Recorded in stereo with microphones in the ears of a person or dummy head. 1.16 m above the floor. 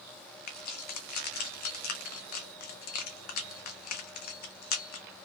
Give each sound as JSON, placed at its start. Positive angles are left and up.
{"t": 0.5, "sound": "keys jangling", "side_deg": 55, "distance_m": 0.7}